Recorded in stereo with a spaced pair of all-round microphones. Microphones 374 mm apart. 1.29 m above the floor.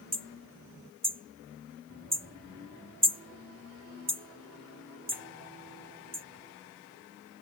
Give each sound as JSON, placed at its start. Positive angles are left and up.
{"t": 0.1, "sound": "hammering", "side_deg": -25}